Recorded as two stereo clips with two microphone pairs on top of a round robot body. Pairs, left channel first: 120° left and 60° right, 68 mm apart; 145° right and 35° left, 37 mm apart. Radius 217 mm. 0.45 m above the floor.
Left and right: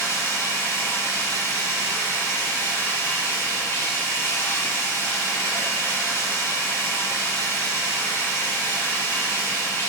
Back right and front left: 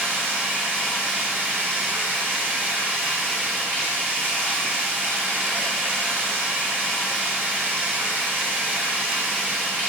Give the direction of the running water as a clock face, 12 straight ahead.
10 o'clock.